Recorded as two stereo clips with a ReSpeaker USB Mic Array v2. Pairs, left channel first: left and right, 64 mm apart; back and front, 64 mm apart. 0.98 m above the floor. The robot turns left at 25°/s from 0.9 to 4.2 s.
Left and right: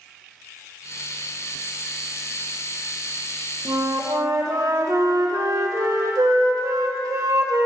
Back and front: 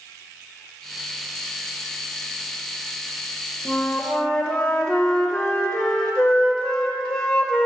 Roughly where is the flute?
Right.